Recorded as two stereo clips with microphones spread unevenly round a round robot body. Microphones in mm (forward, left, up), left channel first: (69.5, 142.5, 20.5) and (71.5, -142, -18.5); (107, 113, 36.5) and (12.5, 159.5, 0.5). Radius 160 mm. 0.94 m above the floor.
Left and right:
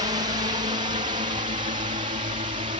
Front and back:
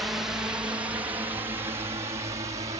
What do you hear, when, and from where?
0.0 s a drone: 145° right; by 2.8 s 160° right